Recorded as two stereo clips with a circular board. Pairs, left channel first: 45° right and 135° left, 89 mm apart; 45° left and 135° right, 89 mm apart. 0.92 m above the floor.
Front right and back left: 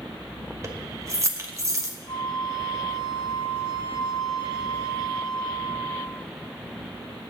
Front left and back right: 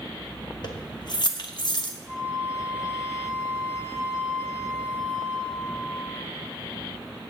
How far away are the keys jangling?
About 1.0 m.